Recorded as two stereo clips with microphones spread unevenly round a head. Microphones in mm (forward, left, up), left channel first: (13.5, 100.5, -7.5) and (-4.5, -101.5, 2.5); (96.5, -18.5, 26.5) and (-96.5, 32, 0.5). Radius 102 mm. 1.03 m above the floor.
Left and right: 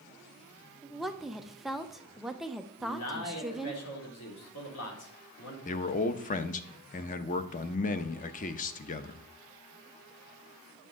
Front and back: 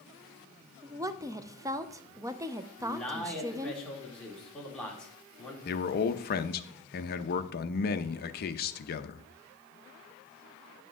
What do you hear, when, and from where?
0.8 s a woman speaking: 170° left, 0.6 m
2.8 s a man speaking: 70° left, 2.5 m
5.7 s a man speaking: 30° left, 0.7 m